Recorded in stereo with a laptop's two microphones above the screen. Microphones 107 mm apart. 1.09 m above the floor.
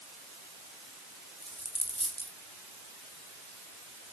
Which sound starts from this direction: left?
A dropped coin, at 1.4 s.